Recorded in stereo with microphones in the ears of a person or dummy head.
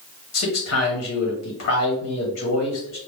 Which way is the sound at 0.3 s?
65° left (ahead or behind).